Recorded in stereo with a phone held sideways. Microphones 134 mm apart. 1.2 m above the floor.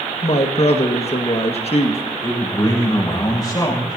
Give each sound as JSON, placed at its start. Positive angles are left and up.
{"t": 0.2, "sound": "a woman speaking", "side_deg": 50, "distance_m": 1.9}
{"t": 2.2, "sound": "a man speaking", "side_deg": 30, "distance_m": 7.0}